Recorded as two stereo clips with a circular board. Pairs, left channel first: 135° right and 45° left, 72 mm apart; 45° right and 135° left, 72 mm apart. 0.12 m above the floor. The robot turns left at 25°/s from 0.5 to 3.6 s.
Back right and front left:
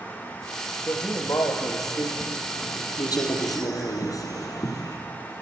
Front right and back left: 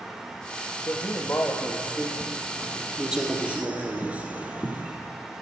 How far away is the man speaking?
About 3.5 m.